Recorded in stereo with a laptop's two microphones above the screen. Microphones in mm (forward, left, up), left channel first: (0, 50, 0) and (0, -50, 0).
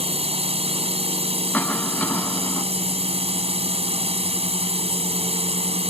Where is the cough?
15° left (ahead or behind).